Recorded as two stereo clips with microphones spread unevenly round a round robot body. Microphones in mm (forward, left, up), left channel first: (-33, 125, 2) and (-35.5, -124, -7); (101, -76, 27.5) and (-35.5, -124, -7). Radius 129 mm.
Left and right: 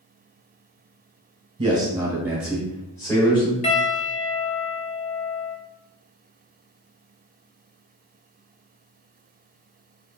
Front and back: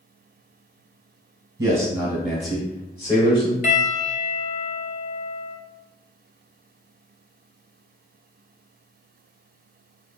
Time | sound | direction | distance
1.6 | a man speaking | 145° right | 1.2 m
3.6 | a piano | 35° left | 0.5 m